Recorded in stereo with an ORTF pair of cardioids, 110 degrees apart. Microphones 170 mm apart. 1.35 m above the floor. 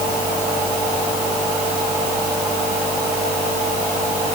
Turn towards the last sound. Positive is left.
No sound to turn to.